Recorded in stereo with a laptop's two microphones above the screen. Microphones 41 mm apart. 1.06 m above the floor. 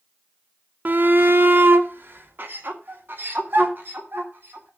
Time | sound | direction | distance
0.8 | a shout | 50° right (ahead or behind) | 0.5 m